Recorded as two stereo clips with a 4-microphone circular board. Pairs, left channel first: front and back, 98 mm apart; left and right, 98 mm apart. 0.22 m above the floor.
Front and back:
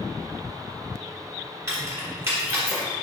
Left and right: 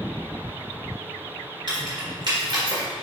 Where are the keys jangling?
120° right, 1.7 m.